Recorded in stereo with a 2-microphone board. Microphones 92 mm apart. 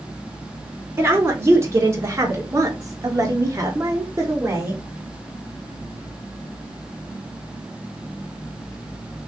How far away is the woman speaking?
About 1.7 m.